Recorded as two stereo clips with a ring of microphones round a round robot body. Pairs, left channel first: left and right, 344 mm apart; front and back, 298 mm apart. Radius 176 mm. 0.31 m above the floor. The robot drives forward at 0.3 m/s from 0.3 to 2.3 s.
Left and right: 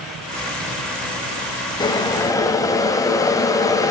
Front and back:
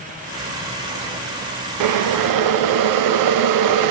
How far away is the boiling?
About 0.5 m.